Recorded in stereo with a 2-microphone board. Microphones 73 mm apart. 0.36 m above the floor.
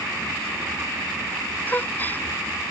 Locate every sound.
1.7 s a gasp: 25° left (ahead or behind)